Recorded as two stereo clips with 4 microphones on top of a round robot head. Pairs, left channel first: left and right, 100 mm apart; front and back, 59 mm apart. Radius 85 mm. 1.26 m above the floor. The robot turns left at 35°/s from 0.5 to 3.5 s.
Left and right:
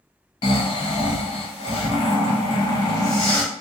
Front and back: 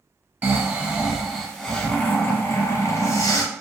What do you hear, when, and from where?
0.4 s snoring: 120° left, 0.9 m; by 3.4 s 15° left, 0.9 m